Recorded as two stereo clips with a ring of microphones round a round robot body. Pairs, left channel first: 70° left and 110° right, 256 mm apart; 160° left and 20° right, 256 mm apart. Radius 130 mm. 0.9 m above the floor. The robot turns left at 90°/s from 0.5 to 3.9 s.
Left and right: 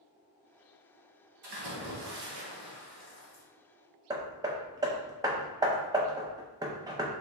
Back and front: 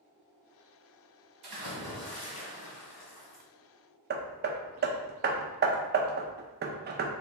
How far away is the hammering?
About 0.5 m.